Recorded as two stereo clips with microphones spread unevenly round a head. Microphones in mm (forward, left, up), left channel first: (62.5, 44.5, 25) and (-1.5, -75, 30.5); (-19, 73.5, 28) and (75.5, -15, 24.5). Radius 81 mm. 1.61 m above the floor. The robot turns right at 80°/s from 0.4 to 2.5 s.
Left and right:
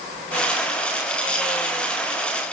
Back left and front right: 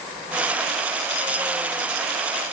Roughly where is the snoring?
No snoring in this recording.